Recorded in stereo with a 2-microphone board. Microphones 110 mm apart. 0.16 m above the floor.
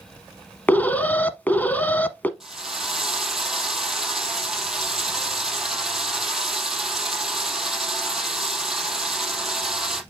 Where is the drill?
5° right (ahead or behind), 3 m.